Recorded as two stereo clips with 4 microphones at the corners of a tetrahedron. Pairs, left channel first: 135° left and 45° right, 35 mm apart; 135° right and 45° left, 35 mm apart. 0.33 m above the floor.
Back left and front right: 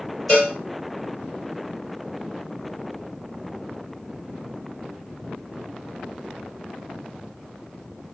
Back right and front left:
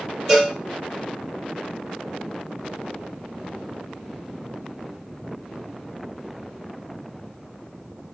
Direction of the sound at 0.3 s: 145° left.